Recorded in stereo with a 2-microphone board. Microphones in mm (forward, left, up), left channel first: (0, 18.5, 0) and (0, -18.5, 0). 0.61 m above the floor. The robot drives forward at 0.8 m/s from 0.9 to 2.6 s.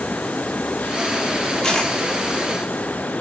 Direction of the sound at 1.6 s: 20° left (ahead or behind).